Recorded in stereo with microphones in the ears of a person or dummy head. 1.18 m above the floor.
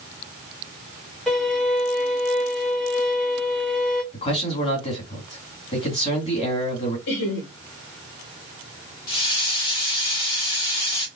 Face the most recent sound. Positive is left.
turn(degrees=25)  # may be behind; listen again after turning